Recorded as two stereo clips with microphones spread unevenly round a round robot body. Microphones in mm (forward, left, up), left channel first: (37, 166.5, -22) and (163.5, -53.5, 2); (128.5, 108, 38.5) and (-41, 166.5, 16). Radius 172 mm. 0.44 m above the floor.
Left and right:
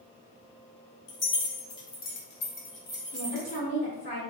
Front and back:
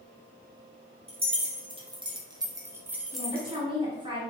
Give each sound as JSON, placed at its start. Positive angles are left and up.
{"t": 1.1, "sound": "keys jangling", "azimuth_deg": 105, "distance_m": 1.4}
{"t": 3.1, "sound": "a woman speaking", "azimuth_deg": 145, "distance_m": 1.1}